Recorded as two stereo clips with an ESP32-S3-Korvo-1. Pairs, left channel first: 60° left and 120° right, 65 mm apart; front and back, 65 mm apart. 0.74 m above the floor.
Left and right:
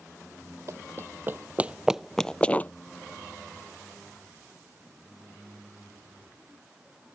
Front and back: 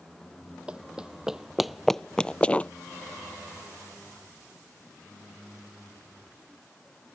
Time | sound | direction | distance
0.7 | running footsteps | 115° right | ?